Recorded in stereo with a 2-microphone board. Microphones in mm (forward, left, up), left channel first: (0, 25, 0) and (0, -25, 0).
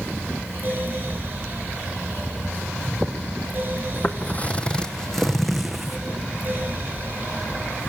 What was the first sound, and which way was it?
Footsteps, 45° left (ahead or behind).